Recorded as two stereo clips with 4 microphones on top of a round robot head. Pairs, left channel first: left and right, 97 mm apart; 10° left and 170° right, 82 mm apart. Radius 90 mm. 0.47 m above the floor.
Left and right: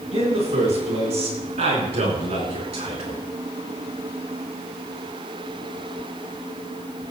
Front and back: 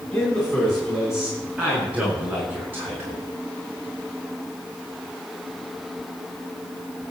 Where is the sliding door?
I don't hear a sliding door.